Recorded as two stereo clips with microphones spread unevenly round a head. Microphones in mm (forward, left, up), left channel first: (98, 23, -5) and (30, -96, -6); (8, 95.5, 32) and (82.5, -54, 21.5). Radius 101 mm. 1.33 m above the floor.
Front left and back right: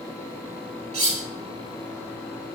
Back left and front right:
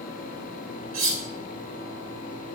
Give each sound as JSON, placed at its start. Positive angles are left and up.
{"t": 0.9, "sound": "cutlery clinking", "azimuth_deg": -80, "distance_m": 1.4}